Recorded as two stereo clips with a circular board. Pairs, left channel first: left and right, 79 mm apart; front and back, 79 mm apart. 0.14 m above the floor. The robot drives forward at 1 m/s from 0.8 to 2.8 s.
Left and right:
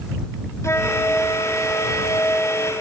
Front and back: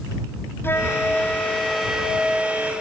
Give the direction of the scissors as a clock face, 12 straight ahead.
I don't hear scissors.